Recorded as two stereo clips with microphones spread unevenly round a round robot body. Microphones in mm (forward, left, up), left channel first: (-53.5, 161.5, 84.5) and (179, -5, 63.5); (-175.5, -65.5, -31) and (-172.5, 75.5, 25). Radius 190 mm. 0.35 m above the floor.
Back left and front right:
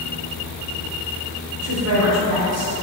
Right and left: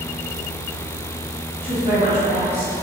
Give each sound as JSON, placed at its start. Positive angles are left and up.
{"t": 1.6, "sound": "a woman speaking", "azimuth_deg": -25, "distance_m": 1.4}